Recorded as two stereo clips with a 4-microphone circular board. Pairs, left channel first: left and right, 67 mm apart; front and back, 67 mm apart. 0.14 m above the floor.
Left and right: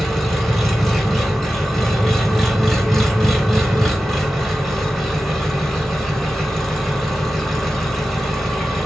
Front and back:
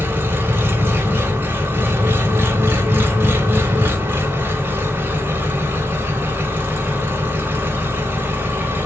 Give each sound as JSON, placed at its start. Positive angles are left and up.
{"t": 0.0, "sound": "an engine running", "azimuth_deg": 175, "distance_m": 1.0}